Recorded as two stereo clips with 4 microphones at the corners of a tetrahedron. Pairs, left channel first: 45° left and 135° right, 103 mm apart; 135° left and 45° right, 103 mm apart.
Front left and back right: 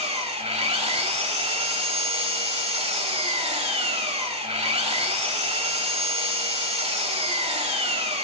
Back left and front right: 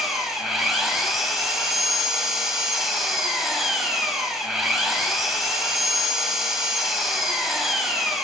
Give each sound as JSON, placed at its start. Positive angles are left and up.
{"t": 0.0, "sound": "an engine running", "azimuth_deg": -135, "distance_m": 1.2}